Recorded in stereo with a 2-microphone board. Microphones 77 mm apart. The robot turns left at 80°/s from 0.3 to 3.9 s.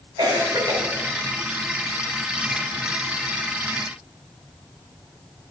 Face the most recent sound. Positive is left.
turn(degrees=-10)